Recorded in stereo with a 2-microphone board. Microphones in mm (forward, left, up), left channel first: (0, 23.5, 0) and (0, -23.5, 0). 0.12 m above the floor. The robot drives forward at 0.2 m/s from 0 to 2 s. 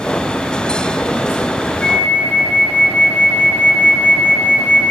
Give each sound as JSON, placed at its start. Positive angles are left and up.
{"t": 1.8, "sound": "a flute", "side_deg": 25, "distance_m": 1.3}